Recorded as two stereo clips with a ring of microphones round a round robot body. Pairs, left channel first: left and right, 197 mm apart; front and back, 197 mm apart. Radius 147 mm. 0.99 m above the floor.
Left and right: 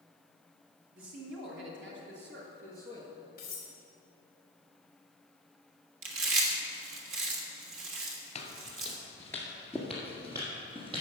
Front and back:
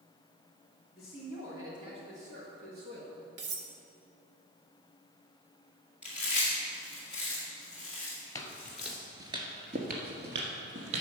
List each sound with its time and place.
0.9 s a man speaking: 90° right, 1.8 m; by 3.1 s 150° right, 1.7 m
3.4 s cutlery clinking: 150° left, 1.2 m
6.0 s chewing: 95° right, 1.5 m
8.3 s footsteps: 60° left, 1.1 m; by 11.0 s 160° right, 1.8 m